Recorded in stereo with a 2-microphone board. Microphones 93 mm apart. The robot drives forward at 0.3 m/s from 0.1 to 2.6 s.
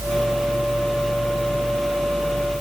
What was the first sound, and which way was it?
Only background noise.